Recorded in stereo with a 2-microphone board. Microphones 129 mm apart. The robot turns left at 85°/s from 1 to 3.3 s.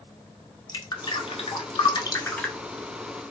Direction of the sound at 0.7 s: 35° left (ahead or behind).